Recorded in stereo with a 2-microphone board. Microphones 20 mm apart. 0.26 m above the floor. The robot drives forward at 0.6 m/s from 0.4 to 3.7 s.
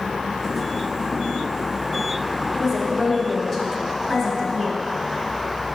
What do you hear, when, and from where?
2.5 s a woman speaking: centre (ahead or behind), 1.1 m